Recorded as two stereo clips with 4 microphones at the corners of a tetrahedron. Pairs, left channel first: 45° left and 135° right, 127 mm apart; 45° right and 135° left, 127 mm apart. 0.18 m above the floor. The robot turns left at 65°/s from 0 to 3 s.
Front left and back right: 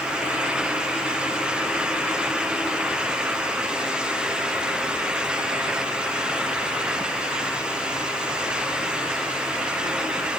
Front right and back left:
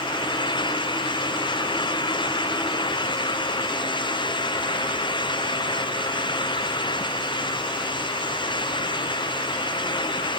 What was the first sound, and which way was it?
Only background noise.